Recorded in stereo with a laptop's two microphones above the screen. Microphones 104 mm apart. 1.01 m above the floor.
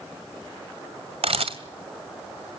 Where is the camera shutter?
70° right (ahead or behind), 1.9 m.